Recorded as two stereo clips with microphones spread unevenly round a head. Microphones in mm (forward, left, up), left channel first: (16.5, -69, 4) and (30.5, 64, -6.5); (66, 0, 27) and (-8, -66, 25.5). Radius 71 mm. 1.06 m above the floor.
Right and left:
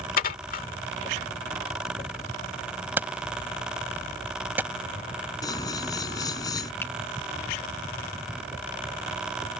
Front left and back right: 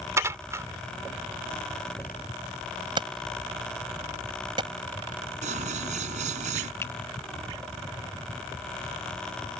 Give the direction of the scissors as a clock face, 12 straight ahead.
5 o'clock.